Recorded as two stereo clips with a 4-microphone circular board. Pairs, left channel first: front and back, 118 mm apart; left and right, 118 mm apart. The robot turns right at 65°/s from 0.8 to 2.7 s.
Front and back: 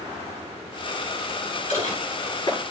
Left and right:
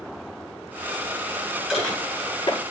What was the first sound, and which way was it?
Dishes clattering, 5° right.